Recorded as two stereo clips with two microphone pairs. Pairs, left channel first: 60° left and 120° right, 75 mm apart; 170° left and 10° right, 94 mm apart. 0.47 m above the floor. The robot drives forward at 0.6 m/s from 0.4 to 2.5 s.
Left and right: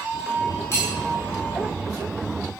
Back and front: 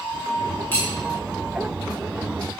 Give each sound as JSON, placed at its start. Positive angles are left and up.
{"t": 0.7, "sound": "cutlery clinking", "azimuth_deg": 105, "distance_m": 1.2}